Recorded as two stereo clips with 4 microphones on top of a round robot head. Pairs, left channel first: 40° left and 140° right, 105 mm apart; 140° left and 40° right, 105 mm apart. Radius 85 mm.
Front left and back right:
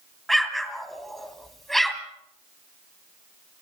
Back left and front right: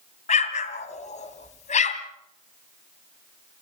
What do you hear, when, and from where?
0.3 s an explosion: 125° left, 1.6 m